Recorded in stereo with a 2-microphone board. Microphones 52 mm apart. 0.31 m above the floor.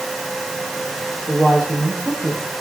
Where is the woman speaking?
35° left (ahead or behind), 10 m.